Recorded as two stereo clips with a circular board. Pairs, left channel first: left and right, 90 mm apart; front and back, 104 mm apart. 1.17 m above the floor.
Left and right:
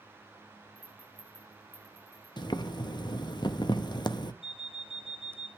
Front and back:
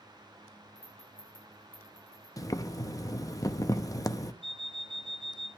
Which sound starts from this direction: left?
An alarm clock, at 4.4 s.